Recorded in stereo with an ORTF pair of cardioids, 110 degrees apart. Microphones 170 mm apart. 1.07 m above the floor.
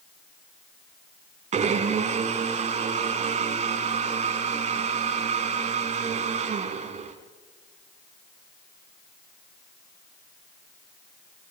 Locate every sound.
1.5 s a blender: 45° right, 3 m